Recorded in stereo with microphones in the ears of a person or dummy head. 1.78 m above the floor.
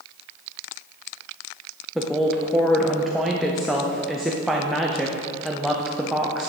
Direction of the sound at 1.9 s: Centre (ahead or behind).